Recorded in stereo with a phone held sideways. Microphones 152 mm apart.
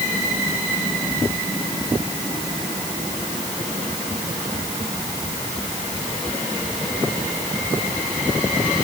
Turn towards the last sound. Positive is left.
No sound to turn to.